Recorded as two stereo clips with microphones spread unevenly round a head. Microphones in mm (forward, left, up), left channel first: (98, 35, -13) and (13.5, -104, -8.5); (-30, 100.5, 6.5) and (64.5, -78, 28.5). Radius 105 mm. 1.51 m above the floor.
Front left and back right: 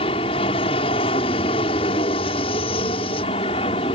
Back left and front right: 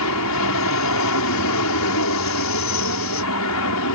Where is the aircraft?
125° left.